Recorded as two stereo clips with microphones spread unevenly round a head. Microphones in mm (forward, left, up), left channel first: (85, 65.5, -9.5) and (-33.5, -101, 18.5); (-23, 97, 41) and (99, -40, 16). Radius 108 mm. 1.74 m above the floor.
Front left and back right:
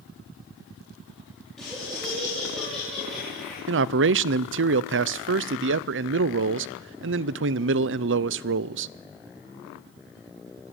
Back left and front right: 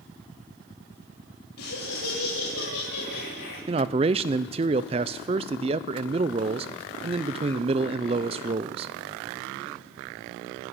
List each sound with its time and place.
1.6 s laughter: 145° left, 4.5 m
3.7 s a man speaking: 115° right, 0.5 m